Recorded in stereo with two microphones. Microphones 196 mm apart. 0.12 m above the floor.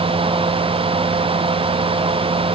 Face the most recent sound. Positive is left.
No sound to turn to.